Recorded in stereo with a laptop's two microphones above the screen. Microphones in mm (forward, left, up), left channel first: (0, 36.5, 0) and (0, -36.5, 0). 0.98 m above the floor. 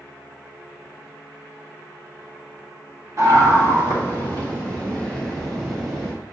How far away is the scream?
About 1.5 m.